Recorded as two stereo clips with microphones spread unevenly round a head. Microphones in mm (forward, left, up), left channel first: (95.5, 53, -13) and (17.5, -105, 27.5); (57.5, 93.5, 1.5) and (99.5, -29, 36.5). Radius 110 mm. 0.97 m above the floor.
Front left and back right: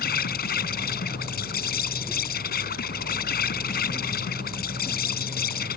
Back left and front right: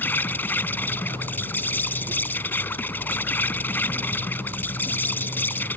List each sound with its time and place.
0.0 s an insect: 25° left